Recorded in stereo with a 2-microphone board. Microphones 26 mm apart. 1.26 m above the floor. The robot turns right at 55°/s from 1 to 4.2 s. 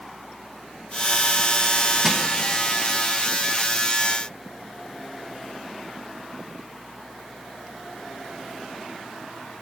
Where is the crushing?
5° right (ahead or behind), 1.1 m; by 2.3 s 20° right (ahead or behind), 1.1 m.